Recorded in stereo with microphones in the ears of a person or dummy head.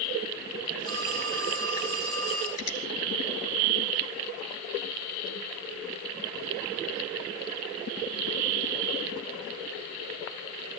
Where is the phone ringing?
25° left (ahead or behind), 4.5 m.